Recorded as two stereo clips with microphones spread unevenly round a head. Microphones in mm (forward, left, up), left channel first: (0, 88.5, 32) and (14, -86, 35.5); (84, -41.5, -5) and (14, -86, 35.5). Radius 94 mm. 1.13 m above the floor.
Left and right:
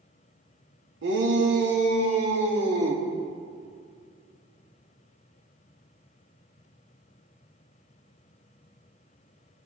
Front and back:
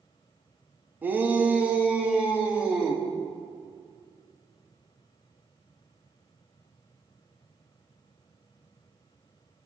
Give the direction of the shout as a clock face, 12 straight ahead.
2 o'clock.